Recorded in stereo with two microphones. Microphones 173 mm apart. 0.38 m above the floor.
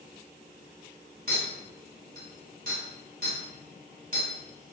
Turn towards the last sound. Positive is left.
turn(degrees=-55)  # may be behind; listen again after turning